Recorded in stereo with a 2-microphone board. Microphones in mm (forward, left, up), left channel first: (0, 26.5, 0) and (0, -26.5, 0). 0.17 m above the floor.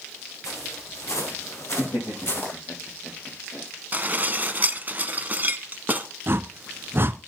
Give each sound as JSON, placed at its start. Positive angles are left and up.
{"t": 0.4, "sound": "footsteps", "side_deg": 80, "distance_m": 5.5}
{"t": 1.8, "sound": "laughter", "side_deg": 80, "distance_m": 6.0}
{"t": 3.9, "sound": "dishes clattering", "side_deg": -35, "distance_m": 1.0}
{"t": 6.3, "sound": "a whoosh", "side_deg": -45, "distance_m": 0.7}